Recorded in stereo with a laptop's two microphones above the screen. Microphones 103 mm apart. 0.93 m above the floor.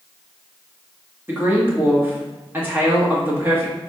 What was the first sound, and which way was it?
A woman speaking, 20° right (ahead or behind).